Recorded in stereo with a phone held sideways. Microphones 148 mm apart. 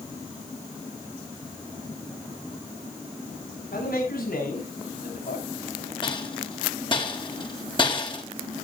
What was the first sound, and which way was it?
A man speaking, 80° left.